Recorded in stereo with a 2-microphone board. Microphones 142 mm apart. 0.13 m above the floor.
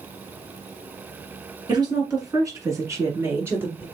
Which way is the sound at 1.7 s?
30° right (ahead or behind).